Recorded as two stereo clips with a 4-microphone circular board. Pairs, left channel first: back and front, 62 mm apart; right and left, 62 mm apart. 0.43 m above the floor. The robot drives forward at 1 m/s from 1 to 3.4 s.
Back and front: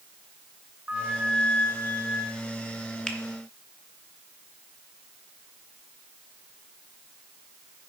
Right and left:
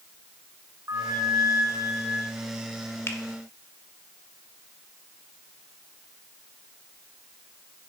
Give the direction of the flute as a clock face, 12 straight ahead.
10 o'clock.